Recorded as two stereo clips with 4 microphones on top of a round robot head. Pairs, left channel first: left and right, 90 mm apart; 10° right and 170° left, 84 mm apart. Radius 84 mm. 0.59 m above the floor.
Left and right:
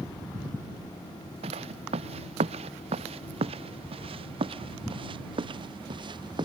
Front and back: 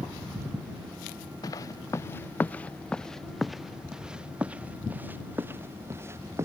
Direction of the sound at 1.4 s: 65° right.